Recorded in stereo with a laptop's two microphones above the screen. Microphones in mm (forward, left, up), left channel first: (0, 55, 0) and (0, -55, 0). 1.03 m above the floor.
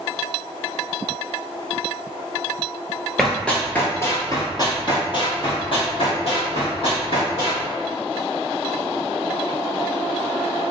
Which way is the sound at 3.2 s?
Centre (ahead or behind).